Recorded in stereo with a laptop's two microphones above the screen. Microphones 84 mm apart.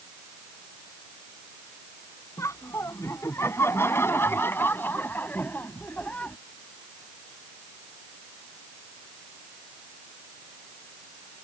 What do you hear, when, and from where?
2.4 s laughter: 35° left (ahead or behind); by 6.4 s 15° left (ahead or behind)